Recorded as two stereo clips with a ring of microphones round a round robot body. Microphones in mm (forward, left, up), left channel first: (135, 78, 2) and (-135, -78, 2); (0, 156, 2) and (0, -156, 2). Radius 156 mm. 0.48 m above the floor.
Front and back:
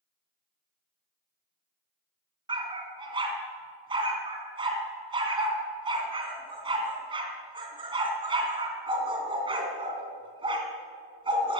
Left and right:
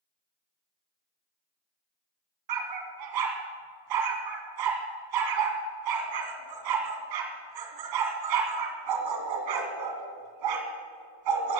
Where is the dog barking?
75° right, 2.0 m.